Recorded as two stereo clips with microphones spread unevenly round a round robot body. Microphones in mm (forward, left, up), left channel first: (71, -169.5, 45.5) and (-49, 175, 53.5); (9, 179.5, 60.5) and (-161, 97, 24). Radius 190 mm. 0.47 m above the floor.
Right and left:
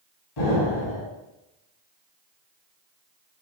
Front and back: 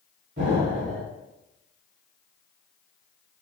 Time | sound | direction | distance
0.4 | an explosion | 95° right | 3.5 m